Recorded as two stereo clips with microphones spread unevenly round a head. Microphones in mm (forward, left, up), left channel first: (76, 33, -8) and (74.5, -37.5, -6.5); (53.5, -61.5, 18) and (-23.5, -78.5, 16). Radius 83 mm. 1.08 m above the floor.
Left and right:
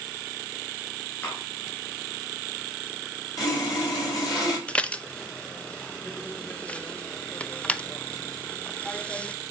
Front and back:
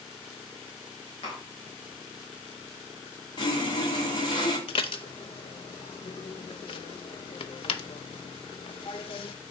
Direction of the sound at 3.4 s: 60° left.